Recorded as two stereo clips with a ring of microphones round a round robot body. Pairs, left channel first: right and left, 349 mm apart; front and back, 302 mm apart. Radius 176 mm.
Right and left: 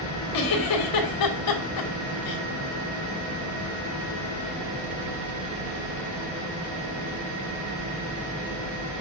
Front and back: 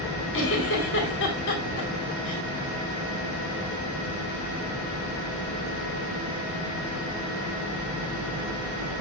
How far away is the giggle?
About 2.5 m.